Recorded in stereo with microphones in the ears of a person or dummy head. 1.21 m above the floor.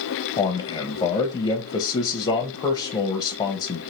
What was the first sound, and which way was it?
A man speaking, 25° left (ahead or behind).